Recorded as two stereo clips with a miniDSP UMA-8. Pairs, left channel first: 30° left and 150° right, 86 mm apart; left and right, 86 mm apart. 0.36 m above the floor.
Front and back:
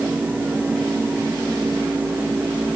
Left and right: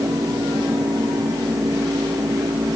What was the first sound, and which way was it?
Only background noise.